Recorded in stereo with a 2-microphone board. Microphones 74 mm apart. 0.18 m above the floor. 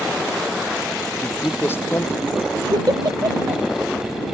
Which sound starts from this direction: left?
A man speaking, at 1.2 s.